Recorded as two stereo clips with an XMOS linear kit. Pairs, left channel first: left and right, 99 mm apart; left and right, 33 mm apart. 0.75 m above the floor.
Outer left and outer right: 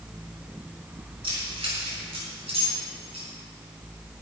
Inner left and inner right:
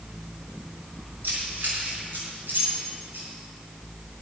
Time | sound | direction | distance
1.2 | keys jangling | 65° right (ahead or behind) | 5 m